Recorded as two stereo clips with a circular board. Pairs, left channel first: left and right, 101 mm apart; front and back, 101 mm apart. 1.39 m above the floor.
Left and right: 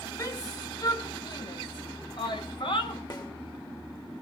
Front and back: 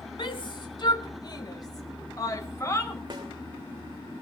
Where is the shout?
35° left, 2 m; by 3.0 s 60° left, 3 m.